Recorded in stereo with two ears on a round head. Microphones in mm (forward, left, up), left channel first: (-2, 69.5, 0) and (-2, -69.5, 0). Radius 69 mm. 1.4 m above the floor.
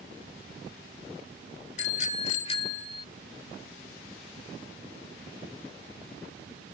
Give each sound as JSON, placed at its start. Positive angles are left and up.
{"t": 1.8, "sound": "a bicycle bell", "side_deg": 50}